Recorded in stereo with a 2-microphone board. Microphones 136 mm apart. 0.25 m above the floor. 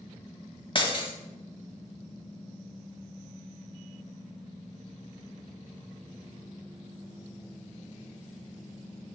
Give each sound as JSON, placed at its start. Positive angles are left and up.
{"t": 0.8, "sound": "breaking glass", "side_deg": 40, "distance_m": 1.1}